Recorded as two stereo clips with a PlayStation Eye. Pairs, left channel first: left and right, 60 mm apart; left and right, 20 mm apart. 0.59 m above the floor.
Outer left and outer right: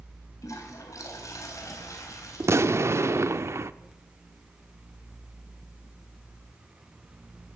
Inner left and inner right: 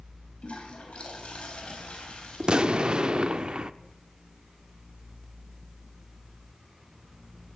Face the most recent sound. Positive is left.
turn(degrees=-50)  # may be behind; listen again after turning